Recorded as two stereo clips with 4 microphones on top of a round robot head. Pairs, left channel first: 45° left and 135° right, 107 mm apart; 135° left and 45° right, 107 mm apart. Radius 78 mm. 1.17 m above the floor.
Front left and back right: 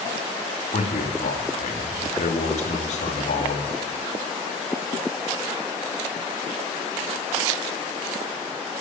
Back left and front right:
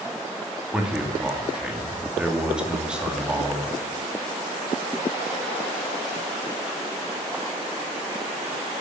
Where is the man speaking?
35° left, 2 m.